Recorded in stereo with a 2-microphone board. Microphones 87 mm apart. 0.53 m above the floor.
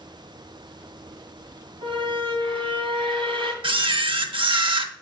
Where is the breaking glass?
No breaking glass in this recording.